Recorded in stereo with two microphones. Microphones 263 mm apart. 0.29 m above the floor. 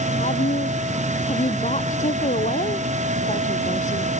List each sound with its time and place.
0.2 s a woman speaking: 25° left (ahead or behind)